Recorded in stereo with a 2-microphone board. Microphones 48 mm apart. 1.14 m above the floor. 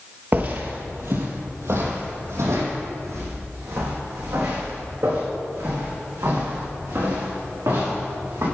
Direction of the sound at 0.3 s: 40° right (ahead or behind).